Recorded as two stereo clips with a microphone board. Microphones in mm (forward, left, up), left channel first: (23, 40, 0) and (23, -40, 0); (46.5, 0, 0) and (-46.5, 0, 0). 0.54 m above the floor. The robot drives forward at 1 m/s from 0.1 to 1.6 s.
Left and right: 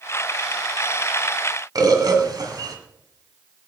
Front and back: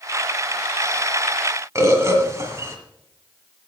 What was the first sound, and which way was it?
A bird, 125° right.